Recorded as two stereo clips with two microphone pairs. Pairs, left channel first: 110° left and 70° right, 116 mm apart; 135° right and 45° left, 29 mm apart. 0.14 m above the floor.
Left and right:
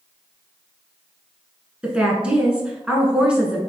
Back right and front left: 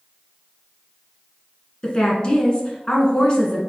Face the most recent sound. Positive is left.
turn(degrees=-145)